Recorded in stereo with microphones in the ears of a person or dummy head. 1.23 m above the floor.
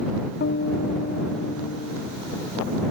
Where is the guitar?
55° left (ahead or behind).